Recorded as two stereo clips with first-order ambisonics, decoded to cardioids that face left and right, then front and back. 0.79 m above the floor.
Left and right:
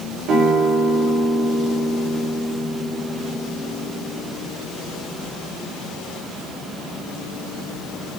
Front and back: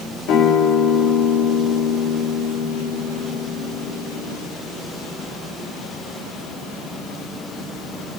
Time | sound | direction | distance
0.3 | a guitar | 45° right | 2.5 m